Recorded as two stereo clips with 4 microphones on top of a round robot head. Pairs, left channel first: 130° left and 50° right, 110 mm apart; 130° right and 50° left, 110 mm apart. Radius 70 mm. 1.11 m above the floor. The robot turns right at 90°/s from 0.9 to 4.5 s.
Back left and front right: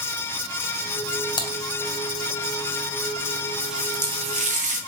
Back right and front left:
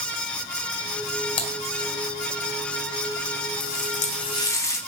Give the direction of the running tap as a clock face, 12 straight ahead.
5 o'clock.